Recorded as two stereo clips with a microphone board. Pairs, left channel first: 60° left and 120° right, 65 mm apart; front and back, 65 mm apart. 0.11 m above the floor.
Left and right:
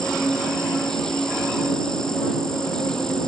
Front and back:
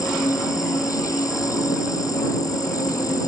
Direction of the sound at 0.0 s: 20° right.